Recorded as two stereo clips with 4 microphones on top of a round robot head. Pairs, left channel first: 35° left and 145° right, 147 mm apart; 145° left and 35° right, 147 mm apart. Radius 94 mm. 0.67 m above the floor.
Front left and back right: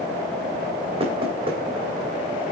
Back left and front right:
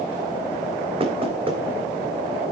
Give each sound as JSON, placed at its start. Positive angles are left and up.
{"t": 1.0, "sound": "knocking", "azimuth_deg": -90, "distance_m": 2.5}